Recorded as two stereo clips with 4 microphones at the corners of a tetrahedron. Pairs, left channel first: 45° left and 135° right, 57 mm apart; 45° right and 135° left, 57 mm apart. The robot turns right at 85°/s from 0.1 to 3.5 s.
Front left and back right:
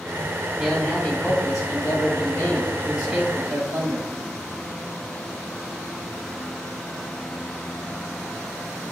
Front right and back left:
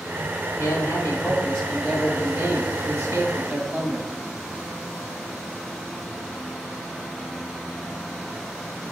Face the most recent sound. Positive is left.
turn(degrees=175)